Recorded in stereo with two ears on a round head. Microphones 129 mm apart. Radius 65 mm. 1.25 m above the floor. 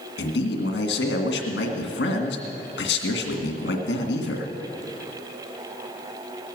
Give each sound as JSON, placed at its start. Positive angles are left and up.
{"t": 0.2, "sound": "a man speaking", "side_deg": 85, "distance_m": 1.9}